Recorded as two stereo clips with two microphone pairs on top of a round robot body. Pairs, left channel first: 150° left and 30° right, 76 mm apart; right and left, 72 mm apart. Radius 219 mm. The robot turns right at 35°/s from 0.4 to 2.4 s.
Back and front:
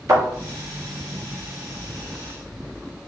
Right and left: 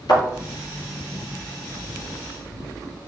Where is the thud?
80° right, 3.5 m.